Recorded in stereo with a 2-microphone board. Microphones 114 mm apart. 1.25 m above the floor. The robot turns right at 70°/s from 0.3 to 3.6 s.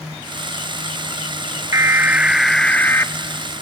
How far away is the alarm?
About 0.5 m.